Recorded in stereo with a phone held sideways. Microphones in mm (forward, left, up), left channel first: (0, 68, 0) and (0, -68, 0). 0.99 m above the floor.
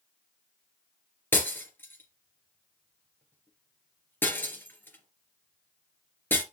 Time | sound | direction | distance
1.3 | breaking glass | 15° left (ahead or behind) | 2.5 m